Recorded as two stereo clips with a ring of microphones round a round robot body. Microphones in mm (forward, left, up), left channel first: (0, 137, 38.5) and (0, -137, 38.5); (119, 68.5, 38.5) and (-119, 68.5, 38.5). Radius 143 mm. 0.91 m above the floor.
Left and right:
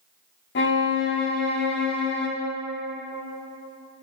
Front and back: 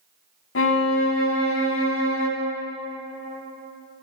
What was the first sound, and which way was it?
A violin, 35° left.